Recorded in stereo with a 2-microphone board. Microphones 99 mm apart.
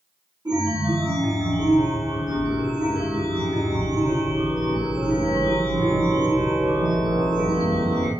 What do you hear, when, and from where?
0.5 s a chime: 45° right (ahead or behind), 1.8 m